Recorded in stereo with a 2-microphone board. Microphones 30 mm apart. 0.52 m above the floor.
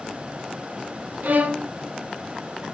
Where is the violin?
70° right (ahead or behind), 1.2 m.